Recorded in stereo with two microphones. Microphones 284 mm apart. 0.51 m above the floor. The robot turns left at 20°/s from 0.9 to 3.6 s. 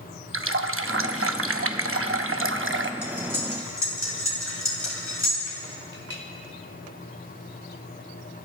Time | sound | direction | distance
0.3 | a running tap | 75° right | 0.6 m
3.0 | cutlery clinking | 60° left (ahead or behind) | 3.5 m
5.9 | a clink | 45° left (ahead or behind) | 1.9 m